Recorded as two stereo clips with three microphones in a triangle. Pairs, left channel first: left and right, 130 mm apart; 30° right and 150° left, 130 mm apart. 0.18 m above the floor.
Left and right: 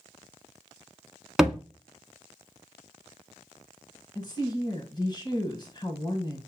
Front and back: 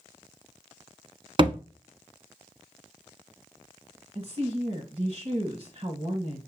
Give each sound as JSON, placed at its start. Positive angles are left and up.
{"t": 1.4, "sound": "a thud", "azimuth_deg": -175, "distance_m": 0.9}
{"t": 4.2, "sound": "a woman speaking", "azimuth_deg": 130, "distance_m": 1.5}